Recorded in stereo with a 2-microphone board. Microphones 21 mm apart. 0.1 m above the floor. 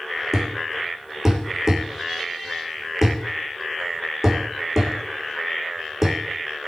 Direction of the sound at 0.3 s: 15° right (ahead or behind).